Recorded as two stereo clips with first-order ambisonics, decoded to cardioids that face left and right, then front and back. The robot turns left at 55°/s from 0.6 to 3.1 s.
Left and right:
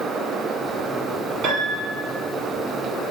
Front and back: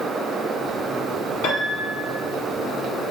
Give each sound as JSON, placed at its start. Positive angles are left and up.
{"t": 1.4, "sound": "a piano", "azimuth_deg": -40, "distance_m": 1.1}